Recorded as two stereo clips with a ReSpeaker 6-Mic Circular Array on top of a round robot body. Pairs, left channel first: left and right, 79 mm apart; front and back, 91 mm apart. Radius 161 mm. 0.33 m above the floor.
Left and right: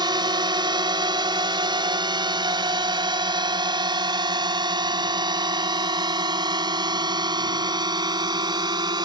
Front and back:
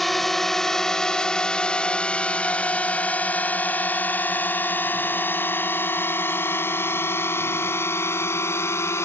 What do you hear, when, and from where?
0.0 s a drone: 90° right; by 9.1 s 60° right